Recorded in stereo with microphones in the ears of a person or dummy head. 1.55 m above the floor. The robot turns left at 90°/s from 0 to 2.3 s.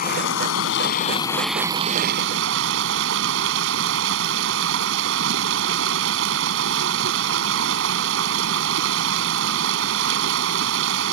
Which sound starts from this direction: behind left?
Running water, at 0.0 s.